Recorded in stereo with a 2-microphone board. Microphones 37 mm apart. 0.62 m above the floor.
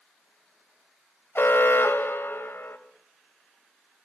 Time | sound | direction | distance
1.4 | an alarm | 65° left (ahead or behind) | 2 m